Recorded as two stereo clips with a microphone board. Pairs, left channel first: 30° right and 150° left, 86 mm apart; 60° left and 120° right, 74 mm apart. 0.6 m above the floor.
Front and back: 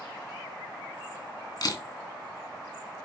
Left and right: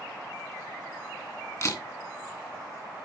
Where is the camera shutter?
10° left, 2.5 m.